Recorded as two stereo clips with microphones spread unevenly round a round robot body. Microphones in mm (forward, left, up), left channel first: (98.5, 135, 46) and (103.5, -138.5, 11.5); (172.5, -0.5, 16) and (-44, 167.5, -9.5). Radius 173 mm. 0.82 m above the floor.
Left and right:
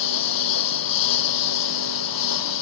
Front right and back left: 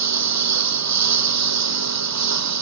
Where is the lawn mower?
120° left.